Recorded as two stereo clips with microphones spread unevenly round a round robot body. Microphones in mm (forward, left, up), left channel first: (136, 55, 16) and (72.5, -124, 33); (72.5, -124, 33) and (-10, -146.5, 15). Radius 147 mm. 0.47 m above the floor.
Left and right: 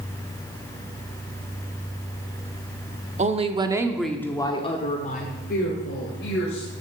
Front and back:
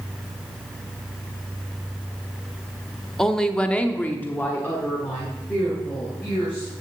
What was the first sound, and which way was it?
A woman speaking, 80° right.